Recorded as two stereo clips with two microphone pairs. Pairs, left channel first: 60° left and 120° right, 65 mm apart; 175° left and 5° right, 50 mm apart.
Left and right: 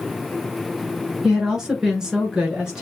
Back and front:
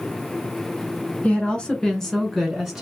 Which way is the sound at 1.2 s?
165° left.